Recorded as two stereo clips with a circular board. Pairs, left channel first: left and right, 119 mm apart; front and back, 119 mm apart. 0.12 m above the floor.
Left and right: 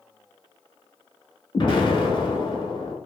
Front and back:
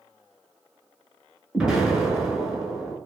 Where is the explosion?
100° left, 0.7 m.